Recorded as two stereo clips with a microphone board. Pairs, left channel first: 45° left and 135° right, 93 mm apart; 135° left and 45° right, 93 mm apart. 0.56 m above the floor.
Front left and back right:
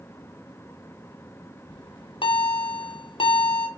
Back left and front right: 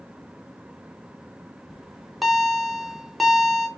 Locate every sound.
1.7 s a bell: 45° left, 0.5 m